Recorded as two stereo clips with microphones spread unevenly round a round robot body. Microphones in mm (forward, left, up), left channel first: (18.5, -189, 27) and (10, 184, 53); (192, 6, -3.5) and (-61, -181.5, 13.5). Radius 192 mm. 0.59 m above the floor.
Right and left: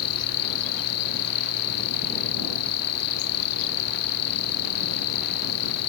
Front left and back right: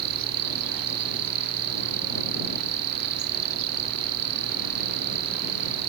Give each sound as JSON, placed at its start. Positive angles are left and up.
{"t": 0.0, "sound": "an insect", "azimuth_deg": -130}